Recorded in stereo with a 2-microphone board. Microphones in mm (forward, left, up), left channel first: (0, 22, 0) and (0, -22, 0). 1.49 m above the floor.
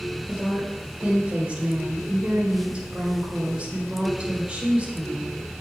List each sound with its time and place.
0.3 s a woman speaking: 25° right (ahead or behind), 5.5 m